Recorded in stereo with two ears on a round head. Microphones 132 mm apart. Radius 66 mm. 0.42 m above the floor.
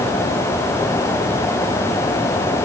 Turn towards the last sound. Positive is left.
No sound to turn to.